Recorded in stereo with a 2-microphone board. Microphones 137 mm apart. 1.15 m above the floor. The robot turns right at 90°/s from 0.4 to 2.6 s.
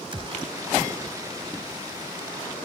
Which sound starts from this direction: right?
A gunshot, at 0.1 s.